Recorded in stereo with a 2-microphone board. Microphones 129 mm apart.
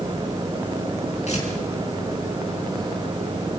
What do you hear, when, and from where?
1.3 s tearing paper: 60° left (ahead or behind), 6 m